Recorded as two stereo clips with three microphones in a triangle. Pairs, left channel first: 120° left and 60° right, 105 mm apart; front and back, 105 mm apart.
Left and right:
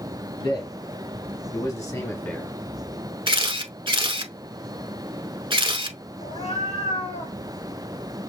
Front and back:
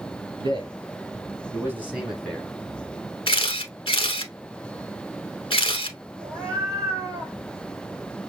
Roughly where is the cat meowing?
Behind left.